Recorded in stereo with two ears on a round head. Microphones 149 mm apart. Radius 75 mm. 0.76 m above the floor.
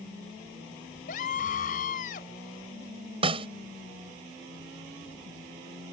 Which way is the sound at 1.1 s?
50° left (ahead or behind).